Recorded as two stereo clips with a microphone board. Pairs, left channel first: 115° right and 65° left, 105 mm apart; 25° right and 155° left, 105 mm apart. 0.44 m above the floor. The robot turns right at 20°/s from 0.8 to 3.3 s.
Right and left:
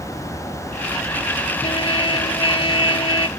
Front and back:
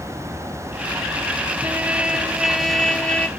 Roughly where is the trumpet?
Behind right.